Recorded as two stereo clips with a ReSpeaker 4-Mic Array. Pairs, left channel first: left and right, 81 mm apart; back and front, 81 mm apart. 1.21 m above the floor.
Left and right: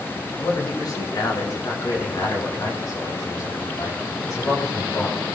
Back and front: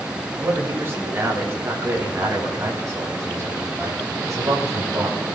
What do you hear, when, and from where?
0.4 s a man speaking: 60° left, 9.5 m; by 5.2 s 45° left, 7.5 m